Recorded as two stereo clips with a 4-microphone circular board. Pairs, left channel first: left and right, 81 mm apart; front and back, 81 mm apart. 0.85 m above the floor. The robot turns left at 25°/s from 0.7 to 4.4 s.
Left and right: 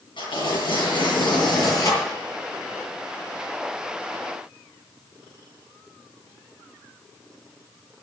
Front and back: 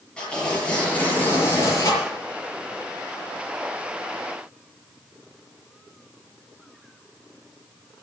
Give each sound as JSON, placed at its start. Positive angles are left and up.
{"t": 0.2, "sound": "tearing paper", "azimuth_deg": 75, "distance_m": 6.5}